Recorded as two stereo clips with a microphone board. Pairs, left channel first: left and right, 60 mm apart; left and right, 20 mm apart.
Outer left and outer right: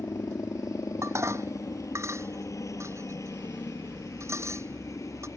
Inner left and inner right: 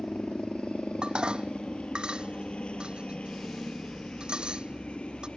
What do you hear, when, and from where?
0.0 s a helicopter: 65° left (ahead or behind)
1.0 s dishes clattering: 50° right (ahead or behind)